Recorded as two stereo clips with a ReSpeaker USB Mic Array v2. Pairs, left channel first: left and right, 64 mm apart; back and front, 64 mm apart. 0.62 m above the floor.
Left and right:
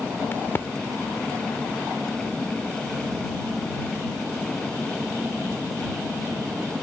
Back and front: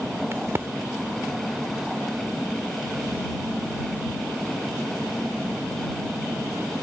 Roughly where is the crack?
Ahead left.